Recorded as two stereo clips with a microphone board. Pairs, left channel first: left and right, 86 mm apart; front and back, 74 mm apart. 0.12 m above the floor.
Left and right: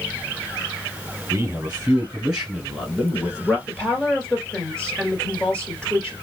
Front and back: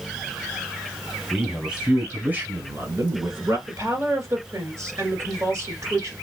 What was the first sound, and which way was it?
A man speaking, 95° right.